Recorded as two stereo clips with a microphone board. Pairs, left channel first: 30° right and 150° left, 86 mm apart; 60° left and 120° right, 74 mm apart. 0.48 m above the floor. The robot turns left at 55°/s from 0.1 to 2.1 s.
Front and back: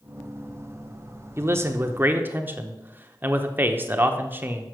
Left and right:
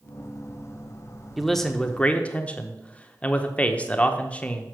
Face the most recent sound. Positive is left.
turn(degrees=110)